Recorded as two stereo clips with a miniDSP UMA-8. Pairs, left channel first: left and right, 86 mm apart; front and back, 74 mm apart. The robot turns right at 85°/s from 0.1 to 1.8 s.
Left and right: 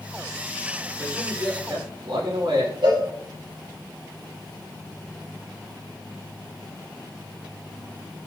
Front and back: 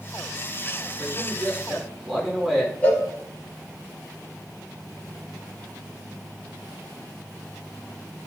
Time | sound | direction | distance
1.0 | a man speaking | 165° right | 6 m
2.8 | a cowbell | 70° right | 4 m